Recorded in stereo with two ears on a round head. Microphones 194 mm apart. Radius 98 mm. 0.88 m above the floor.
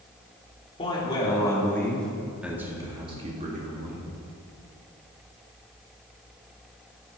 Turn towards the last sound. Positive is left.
turn(degrees=-45)  # may be behind; listen again after turning